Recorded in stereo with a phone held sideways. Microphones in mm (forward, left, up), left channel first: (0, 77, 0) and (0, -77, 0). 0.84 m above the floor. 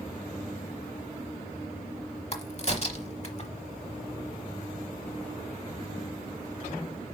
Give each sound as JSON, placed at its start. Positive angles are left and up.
{"t": 2.3, "sound": "a crack", "side_deg": 45, "distance_m": 1.0}